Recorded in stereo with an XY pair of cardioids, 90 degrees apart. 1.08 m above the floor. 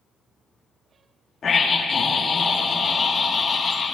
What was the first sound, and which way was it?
A scream, 50° left.